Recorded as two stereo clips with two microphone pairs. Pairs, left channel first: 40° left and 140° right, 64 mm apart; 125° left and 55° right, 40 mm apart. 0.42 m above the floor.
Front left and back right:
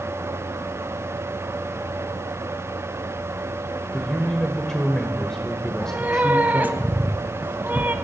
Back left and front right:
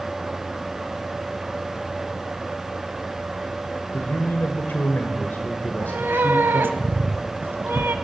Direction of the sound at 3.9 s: 115° left.